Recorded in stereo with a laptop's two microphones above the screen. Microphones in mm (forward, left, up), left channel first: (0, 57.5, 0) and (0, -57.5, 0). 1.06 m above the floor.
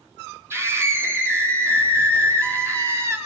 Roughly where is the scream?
Right.